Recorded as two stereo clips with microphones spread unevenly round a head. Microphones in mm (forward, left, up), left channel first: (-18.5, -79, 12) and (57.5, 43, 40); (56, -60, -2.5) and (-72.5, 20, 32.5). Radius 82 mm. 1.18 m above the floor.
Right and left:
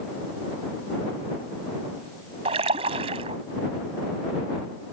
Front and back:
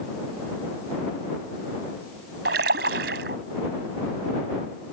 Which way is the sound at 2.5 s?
115° left.